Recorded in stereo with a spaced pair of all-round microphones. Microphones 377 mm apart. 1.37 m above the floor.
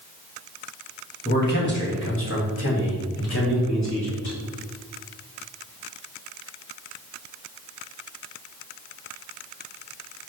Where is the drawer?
I don't hear a drawer.